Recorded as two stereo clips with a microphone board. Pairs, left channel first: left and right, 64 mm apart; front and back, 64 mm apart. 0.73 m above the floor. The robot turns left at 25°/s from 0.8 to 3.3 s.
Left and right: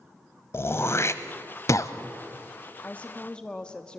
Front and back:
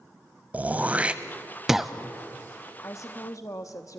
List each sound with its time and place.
0.5 s throat clearing: 125° left, 0.7 m; by 1.9 s 95° left, 0.7 m
2.8 s a woman speaking: 30° left, 0.9 m; by 4.0 s 20° left, 0.9 m